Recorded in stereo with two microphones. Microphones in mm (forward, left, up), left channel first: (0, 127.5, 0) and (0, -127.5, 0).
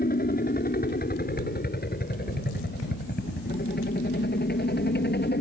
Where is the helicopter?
35° left (ahead or behind); by 5.4 s 40° left (ahead or behind).